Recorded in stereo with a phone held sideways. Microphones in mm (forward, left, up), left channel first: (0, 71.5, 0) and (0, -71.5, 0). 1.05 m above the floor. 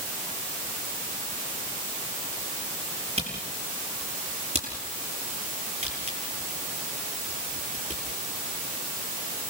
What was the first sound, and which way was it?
A camera shutter, 45° right (ahead or behind).